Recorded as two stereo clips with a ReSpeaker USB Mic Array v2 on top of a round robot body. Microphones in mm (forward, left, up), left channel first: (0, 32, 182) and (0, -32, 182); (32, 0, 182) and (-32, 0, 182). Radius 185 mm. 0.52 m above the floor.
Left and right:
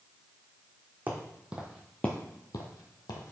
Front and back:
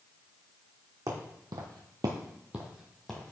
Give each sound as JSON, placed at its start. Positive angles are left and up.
{"t": 1.1, "sound": "footsteps", "azimuth_deg": -150, "distance_m": 1.7}